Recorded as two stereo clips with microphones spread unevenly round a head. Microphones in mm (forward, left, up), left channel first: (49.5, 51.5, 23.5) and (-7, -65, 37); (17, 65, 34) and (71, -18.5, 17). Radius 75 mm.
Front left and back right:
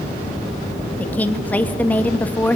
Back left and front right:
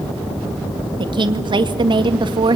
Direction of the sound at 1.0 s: 15° right.